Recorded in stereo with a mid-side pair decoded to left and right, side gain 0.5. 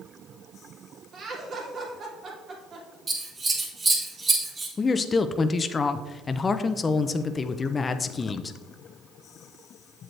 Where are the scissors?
35° right, 3 m.